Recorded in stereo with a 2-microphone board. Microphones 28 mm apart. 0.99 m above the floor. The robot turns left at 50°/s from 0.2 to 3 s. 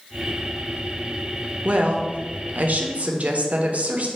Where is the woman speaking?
50° right, 0.6 m; by 4.1 s 115° right, 0.6 m.